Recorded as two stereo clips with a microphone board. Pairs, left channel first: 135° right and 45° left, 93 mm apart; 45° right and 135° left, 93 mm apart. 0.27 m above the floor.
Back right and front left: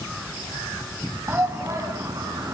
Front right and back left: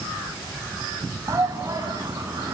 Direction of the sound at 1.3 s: 100° left.